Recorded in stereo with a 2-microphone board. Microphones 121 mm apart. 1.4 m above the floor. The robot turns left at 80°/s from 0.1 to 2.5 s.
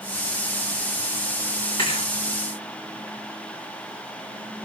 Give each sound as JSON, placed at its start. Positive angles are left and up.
{"t": 1.8, "sound": "a thud", "side_deg": 45, "distance_m": 9.0}